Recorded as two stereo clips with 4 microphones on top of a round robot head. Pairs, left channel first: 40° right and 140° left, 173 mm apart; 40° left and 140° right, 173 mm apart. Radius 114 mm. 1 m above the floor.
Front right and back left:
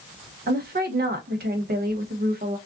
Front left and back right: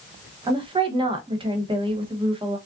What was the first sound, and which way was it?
A woman speaking, 160° left.